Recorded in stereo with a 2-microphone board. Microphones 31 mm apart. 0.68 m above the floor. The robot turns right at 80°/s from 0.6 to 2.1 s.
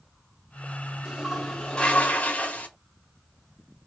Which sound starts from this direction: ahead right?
A toilet flushing, at 1.1 s.